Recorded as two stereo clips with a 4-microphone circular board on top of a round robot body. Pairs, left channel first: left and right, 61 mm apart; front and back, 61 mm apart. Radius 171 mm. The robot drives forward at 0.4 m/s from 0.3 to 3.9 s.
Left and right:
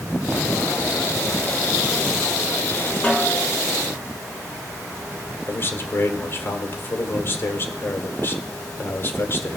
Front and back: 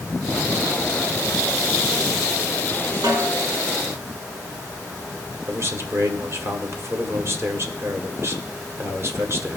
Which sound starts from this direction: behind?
A snare drum, at 3.0 s.